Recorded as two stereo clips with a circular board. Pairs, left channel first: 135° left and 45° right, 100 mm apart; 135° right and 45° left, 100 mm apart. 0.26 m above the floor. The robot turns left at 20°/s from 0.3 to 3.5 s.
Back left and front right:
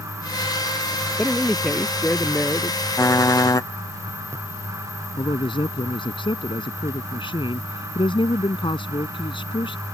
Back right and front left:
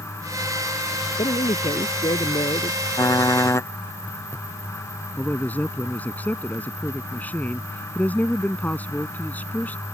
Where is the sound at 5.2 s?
155° left.